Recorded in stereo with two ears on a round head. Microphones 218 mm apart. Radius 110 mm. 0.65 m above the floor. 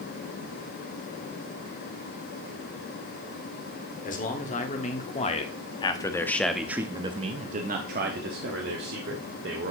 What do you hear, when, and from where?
4.0 s a man speaking: 35° left (ahead or behind), 1.8 m; by 9.7 s 45° right (ahead or behind), 1.8 m